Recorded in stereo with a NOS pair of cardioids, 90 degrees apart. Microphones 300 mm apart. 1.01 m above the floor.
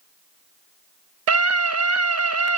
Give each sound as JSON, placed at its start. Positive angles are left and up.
{"t": 1.3, "sound": "a scream", "azimuth_deg": -60, "distance_m": 0.9}